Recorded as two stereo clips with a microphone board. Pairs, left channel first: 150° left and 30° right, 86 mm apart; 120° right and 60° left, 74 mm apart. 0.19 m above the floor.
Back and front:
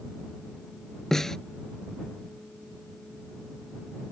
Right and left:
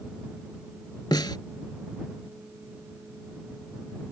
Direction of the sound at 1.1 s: 125° right.